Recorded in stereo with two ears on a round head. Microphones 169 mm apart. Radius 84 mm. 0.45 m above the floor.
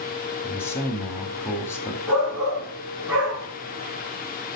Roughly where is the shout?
Centre.